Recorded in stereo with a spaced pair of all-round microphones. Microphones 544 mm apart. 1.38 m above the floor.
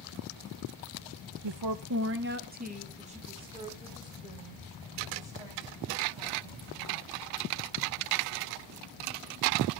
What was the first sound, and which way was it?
A woman speaking, 55° right (ahead or behind).